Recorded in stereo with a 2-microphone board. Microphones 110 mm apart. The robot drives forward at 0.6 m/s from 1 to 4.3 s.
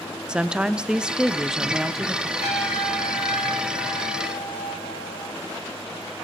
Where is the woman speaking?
10° right (ahead or behind), 0.6 m; by 2.3 s 5° right (ahead or behind), 1.3 m.